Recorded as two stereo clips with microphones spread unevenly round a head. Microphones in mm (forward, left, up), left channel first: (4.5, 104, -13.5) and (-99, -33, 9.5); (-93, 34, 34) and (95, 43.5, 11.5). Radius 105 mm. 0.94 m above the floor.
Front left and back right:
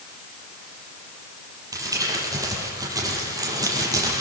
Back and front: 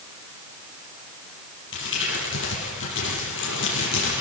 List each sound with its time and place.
1.7 s crumpling: 165° left, 10 m